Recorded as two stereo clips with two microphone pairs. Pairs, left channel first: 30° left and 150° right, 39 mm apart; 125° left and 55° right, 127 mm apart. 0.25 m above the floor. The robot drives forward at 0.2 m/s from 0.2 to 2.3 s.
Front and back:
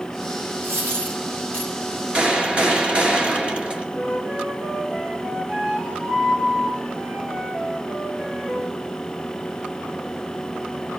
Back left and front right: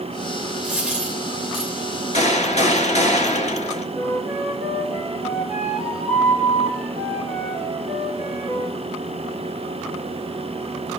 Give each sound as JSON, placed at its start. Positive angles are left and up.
{"t": 0.6, "sound": "a dropped coin", "azimuth_deg": -140, "distance_m": 5.5}
{"t": 2.1, "sound": "a gunshot", "azimuth_deg": 150, "distance_m": 1.8}
{"t": 4.0, "sound": "a flute", "azimuth_deg": -145, "distance_m": 5.5}